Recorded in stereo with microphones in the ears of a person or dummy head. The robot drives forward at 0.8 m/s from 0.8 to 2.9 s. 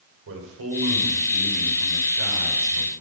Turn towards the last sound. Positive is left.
turn(degrees=-85)